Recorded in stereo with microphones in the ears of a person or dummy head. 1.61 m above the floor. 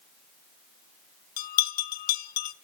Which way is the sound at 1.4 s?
50° left (ahead or behind).